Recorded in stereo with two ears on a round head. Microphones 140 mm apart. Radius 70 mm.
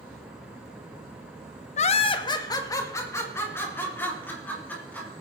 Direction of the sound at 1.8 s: 45° left (ahead or behind).